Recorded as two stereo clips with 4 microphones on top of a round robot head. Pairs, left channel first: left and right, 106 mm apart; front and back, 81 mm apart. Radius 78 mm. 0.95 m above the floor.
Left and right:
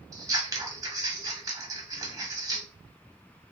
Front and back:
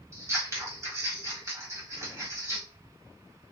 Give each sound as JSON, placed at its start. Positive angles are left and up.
{"t": 0.1, "sound": "scissors", "azimuth_deg": -135, "distance_m": 1.1}